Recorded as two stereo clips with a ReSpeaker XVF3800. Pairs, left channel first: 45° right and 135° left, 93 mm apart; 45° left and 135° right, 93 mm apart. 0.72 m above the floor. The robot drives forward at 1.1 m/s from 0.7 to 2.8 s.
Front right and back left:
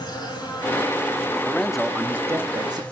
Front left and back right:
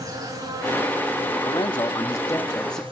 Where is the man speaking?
30° left, 1.5 m; by 2.8 s 125° left, 1.1 m.